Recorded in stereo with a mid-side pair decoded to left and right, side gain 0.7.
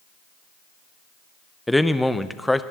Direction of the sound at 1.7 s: 5° left.